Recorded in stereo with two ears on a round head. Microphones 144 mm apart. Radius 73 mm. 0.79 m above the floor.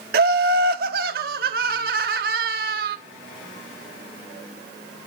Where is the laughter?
60° right (ahead or behind), 1.2 m.